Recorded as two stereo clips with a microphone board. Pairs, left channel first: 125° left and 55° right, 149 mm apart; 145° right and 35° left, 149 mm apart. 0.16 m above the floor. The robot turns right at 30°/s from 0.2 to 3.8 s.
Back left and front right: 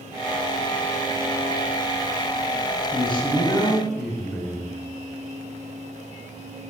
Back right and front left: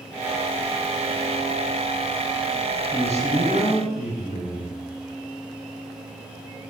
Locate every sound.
2.9 s a man speaking: 170° left, 2 m; by 4.8 s 160° right, 2 m